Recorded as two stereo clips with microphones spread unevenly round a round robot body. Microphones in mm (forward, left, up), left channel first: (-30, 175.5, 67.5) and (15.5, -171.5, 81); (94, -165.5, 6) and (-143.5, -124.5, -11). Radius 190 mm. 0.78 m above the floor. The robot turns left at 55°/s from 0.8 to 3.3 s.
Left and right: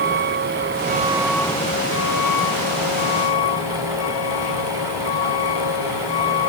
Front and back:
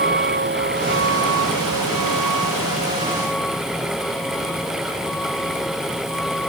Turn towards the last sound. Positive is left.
turn(degrees=80)